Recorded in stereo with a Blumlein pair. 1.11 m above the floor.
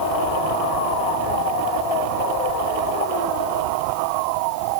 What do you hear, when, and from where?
Only background noise.